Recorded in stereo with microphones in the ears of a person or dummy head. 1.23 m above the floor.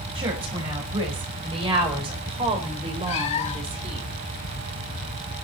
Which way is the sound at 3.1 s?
30° left (ahead or behind).